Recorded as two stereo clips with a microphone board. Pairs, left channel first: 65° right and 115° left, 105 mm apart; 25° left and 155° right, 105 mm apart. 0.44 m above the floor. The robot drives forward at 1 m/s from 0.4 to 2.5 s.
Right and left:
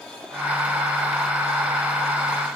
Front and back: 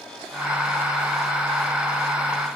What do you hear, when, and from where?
Only background noise.